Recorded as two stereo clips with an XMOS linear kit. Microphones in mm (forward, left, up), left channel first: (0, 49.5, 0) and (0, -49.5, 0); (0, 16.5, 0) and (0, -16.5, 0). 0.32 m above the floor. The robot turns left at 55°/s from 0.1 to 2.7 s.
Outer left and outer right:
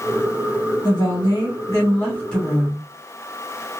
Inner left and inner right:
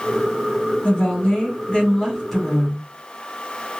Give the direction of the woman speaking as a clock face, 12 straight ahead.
9 o'clock.